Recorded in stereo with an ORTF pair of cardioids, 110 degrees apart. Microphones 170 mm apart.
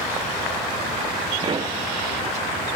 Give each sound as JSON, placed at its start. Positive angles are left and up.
{"t": 1.4, "sound": "a pop", "azimuth_deg": -30}